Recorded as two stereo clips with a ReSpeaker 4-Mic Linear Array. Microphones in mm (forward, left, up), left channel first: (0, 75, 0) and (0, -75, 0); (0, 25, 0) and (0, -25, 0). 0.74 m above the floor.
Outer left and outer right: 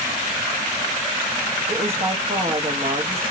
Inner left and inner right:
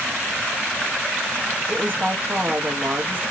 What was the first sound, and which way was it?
A woman speaking, 40° right (ahead or behind).